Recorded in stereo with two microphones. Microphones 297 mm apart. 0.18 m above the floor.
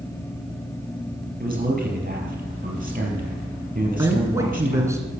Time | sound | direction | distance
1.4 | a man speaking | 30° right (ahead or behind) | 4 m
4.0 | a man speaking | 10° right (ahead or behind) | 2.5 m